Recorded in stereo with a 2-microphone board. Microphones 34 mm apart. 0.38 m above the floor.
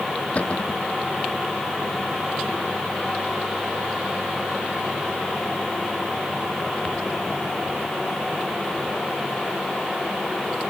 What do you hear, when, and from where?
0.3 s a cupboard door: 40° left (ahead or behind)